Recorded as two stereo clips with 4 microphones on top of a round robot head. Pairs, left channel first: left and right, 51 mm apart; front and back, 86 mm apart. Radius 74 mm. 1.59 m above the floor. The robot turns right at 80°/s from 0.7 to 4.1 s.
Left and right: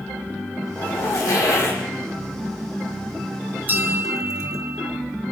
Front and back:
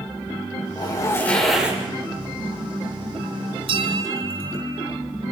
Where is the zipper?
30° left, 6 m; by 1.8 s 115° left, 6 m.